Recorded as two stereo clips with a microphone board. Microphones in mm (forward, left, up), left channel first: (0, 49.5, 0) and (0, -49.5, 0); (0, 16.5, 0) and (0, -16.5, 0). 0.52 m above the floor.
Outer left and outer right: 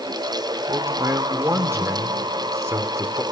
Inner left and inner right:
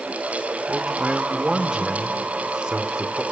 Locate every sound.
0.7 s a man speaking: 30° right (ahead or behind), 1.6 m